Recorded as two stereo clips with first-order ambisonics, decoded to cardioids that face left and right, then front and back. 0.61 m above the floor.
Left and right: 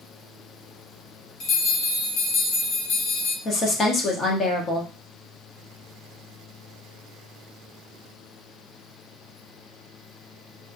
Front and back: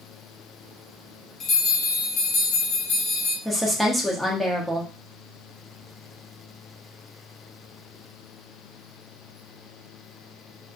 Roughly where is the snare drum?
No snare drum in this recording.